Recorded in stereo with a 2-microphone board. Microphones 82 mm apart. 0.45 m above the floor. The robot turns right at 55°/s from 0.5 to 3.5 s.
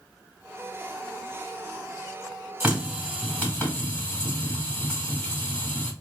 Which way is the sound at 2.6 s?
25° right.